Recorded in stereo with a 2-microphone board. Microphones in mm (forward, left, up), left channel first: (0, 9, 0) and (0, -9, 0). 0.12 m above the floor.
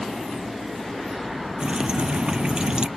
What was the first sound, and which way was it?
Dripping, 45° right (ahead or behind).